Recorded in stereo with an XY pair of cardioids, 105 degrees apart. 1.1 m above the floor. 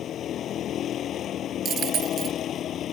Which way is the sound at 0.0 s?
65° left.